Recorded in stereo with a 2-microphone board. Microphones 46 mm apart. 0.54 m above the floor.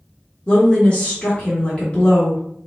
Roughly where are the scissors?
I don't hear scissors.